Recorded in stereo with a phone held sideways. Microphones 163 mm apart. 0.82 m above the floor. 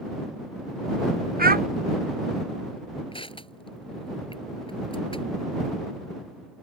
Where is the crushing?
35° left (ahead or behind).